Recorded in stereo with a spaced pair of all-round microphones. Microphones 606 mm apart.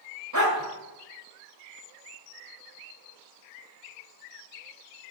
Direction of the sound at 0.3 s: 30° right (ahead or behind).